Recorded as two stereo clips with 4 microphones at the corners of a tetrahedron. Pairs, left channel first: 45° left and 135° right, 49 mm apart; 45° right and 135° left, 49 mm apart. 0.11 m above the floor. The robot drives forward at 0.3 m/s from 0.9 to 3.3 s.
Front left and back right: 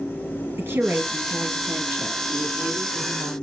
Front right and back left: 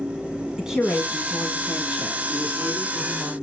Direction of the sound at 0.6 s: 155° right.